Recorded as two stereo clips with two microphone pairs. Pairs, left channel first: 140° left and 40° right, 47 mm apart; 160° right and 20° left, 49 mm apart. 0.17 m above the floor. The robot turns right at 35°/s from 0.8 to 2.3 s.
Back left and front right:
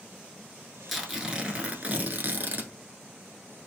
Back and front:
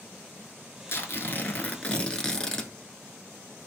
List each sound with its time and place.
0.9 s tearing paper: 130° right, 0.7 m; by 2.7 s 80° right, 0.7 m